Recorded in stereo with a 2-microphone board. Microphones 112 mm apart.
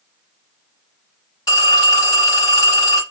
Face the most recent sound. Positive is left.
turn(degrees=40)  # may be behind; listen again after turning